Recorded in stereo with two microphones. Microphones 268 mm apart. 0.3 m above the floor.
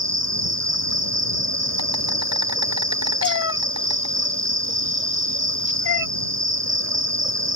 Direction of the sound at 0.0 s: 75° right (ahead or behind).